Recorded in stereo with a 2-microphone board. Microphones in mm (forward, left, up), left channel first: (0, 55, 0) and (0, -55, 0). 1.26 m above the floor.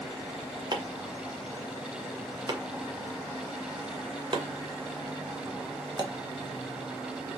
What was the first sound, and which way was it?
Chopping, 45° right (ahead or behind).